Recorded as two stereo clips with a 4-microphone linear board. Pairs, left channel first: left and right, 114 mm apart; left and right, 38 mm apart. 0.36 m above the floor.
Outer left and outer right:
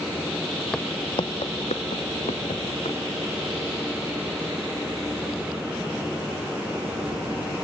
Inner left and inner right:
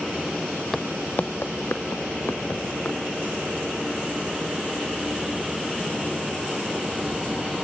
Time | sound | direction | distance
0.7 | footsteps | 10° left (ahead or behind) | 1.0 m